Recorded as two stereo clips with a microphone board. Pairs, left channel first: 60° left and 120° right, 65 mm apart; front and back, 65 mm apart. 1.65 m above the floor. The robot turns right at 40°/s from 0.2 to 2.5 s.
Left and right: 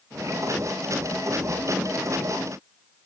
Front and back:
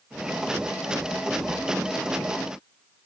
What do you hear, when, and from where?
Only background noise.